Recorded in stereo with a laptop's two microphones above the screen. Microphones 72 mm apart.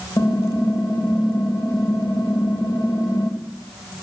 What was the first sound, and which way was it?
Typing on a keyboard, 85° left.